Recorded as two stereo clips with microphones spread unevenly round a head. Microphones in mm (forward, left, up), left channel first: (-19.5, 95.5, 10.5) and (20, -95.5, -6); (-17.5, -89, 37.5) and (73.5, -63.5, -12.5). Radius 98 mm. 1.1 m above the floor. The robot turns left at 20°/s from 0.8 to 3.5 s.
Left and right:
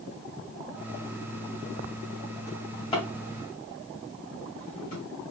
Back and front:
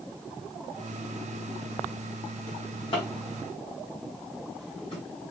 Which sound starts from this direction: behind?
A drawer, at 2.5 s.